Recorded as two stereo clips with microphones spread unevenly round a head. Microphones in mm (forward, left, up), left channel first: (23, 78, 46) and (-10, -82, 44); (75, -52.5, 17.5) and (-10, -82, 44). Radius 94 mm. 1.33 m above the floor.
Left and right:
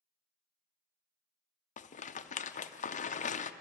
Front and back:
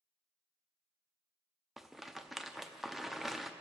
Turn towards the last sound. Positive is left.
turn(degrees=95)